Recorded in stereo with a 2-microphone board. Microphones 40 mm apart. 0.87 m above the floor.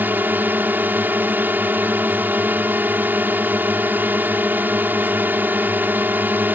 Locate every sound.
0.0 s a drone: 55° right (ahead or behind)